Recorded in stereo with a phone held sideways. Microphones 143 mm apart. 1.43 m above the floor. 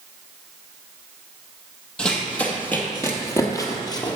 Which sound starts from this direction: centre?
Running footsteps, at 2.0 s.